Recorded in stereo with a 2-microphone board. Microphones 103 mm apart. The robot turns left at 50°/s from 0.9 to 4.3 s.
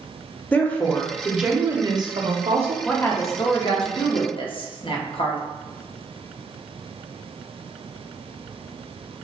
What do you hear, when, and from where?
0.5 s a woman speaking: 15° left, 0.5 m; by 2.8 s 80° right, 0.5 m
2.9 s a woman speaking: 165° left, 0.6 m; by 5.4 s 90° left, 0.6 m